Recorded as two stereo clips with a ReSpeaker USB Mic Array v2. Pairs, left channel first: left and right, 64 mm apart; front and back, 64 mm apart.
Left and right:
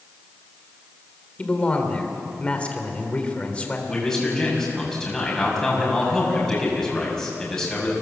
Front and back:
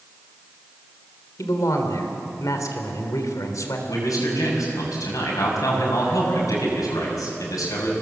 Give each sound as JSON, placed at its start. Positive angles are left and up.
{"t": 1.4, "sound": "a man speaking", "azimuth_deg": 20, "distance_m": 3.0}
{"t": 3.9, "sound": "a man speaking", "azimuth_deg": 5, "distance_m": 7.0}